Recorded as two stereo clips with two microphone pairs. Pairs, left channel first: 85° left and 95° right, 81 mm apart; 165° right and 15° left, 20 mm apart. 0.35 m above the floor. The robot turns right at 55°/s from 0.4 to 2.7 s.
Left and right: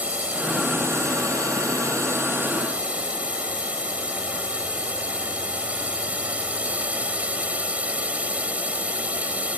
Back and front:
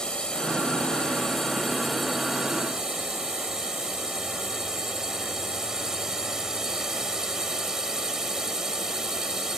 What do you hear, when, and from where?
0.0 s a drone: 160° right; by 9.6 s 35° right